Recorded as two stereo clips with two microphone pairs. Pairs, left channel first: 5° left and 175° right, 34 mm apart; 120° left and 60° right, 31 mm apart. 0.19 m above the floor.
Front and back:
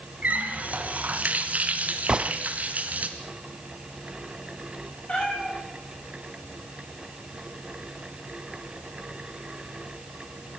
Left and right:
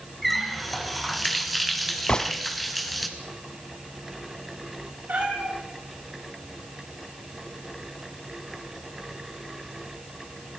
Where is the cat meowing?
45° right, 8.5 m.